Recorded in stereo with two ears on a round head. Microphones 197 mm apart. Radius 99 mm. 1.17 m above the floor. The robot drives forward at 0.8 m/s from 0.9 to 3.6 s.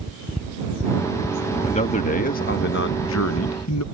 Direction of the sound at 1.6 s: 30° left (ahead or behind).